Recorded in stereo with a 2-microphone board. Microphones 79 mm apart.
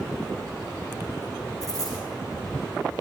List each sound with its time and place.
1.6 s a dropped coin: 50° left (ahead or behind), 9 m